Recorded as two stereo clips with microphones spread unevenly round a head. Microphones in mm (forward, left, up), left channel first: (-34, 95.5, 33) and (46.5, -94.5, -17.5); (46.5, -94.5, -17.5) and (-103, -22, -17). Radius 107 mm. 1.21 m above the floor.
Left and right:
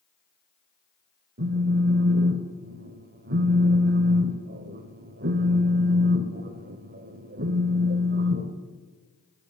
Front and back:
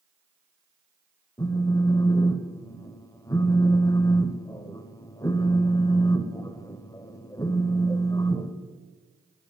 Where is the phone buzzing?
75° right, 1.0 m.